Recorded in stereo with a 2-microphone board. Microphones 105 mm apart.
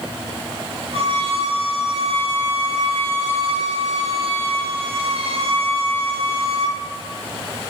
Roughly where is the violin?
Right.